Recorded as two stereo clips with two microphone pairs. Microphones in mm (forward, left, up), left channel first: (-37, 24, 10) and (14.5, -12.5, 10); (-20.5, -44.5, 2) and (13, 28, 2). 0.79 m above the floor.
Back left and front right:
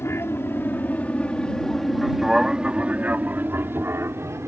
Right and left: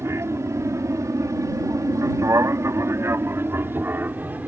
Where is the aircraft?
110° left; by 4.5 s straight ahead.